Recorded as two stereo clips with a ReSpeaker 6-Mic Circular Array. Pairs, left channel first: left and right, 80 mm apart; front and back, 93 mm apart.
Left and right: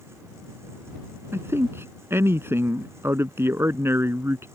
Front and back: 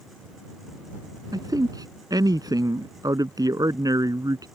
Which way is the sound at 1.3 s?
145° right.